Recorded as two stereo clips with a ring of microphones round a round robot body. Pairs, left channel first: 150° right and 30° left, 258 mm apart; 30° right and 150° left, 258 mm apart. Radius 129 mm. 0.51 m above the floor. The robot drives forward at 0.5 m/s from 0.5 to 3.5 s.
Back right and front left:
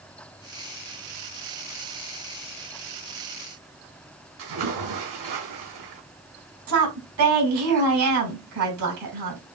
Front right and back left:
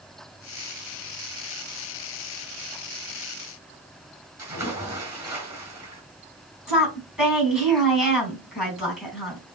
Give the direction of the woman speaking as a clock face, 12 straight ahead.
10 o'clock.